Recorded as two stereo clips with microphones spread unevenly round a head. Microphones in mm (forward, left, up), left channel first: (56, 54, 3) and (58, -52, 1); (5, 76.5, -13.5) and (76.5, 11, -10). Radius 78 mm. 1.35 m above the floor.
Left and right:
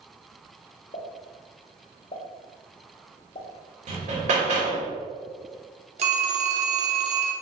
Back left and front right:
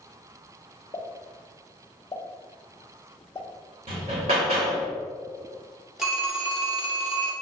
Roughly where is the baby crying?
No baby crying in this recording.